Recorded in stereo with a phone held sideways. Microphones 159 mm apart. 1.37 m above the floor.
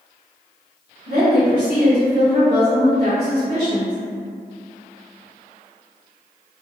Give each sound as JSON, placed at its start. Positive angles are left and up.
{"t": 1.1, "sound": "a woman speaking", "side_deg": -80, "distance_m": 1.3}